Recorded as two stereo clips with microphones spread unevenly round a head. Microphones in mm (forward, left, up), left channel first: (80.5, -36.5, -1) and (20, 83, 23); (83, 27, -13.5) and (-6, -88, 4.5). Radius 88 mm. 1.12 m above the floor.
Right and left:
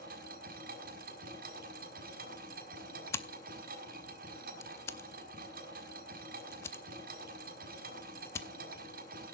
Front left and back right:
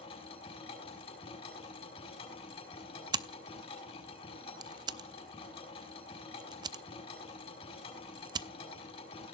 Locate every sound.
0.0 s a machine running: 115° left, 5.5 m
3.1 s scissors: 140° right, 0.6 m